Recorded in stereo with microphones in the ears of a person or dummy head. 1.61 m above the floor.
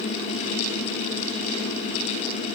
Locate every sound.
Only background noise.